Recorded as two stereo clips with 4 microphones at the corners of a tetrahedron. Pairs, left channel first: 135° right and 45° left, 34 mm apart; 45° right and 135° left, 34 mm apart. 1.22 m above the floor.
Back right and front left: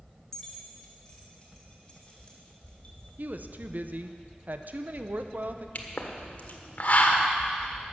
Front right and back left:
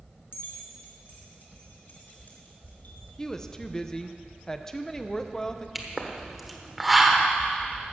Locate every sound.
0.3 s keys jangling: 55° right, 2 m; by 3.1 s 80° right, 3 m
3.2 s a woman speaking: 25° left, 0.7 m
5.8 s a pop: 140° right, 1.2 m